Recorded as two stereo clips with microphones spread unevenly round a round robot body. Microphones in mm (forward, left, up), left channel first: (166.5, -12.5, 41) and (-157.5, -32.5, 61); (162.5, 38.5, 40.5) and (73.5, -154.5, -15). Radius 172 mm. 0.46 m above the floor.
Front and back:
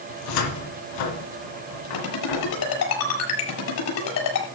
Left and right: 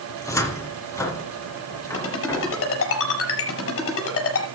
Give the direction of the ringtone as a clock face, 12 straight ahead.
10 o'clock.